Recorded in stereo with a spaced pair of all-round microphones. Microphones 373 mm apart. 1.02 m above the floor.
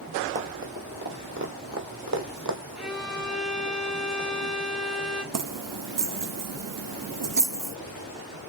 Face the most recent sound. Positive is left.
turn(degrees=-55)  # may be behind; listen again after turning